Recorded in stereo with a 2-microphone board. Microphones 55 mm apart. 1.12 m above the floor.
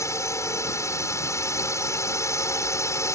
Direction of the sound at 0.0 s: 70° left (ahead or behind).